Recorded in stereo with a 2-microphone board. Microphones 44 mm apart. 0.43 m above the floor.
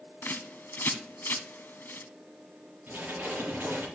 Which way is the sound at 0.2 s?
55° left (ahead or behind).